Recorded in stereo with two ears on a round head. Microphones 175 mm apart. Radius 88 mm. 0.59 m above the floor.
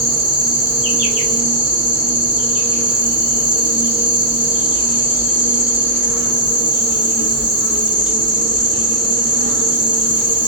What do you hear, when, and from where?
0.0 s an insect: 5° right (ahead or behind), 2.0 m